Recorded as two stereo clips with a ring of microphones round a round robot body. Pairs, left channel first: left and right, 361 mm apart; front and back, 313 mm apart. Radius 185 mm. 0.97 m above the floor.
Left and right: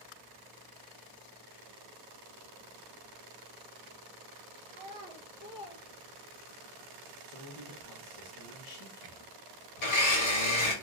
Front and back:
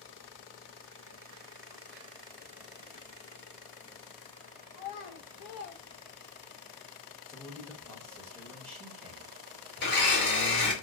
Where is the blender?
55° left, 1.6 m.